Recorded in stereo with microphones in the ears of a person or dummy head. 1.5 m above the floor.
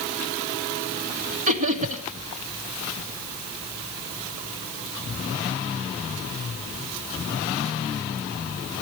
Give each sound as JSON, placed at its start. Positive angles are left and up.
{"t": 1.5, "sound": "laughter", "side_deg": -40, "distance_m": 1.9}